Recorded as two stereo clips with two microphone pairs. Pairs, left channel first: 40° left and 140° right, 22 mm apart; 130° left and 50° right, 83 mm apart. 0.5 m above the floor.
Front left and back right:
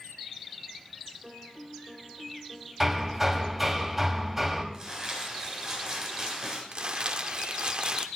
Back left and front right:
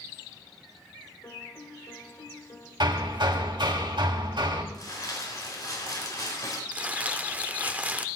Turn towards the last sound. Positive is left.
turn(degrees=-110)